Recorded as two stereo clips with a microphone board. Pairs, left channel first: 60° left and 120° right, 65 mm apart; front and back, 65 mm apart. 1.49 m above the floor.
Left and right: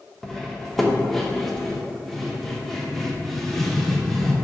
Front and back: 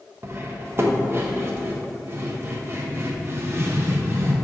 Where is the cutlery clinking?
145° left, 0.9 m.